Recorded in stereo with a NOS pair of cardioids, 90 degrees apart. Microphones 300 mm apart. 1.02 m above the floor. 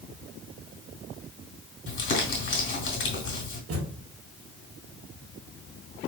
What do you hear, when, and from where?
1.9 s crumpling: 40° left, 3 m
3.7 s a thud: 55° right, 1.9 m